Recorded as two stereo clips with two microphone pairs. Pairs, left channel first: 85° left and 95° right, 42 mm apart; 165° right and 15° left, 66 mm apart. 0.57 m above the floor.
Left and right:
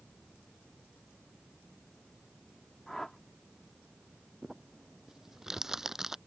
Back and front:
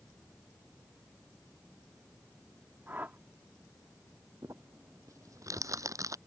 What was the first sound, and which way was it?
A whoosh, 15° left.